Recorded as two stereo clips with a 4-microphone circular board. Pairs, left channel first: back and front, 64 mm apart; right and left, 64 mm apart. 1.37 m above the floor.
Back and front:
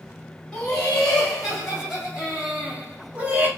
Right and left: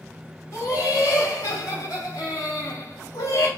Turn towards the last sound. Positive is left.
turn(degrees=-60)